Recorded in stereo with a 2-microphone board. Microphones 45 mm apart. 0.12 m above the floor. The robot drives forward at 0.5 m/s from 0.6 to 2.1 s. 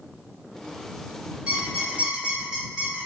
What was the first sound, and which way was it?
A squeak, 20° right (ahead or behind).